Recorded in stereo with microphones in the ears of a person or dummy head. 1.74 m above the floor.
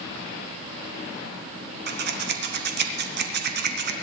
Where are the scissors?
50° right (ahead or behind), 1.2 m.